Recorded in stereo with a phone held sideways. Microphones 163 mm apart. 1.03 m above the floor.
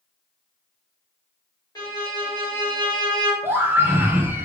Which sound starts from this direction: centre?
A scream, at 3.4 s.